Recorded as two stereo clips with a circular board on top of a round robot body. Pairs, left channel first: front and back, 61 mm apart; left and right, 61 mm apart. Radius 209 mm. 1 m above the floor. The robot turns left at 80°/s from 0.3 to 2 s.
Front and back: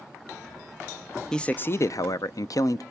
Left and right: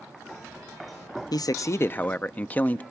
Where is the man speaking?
80° left, 0.5 m; by 2.8 s 25° left, 0.5 m.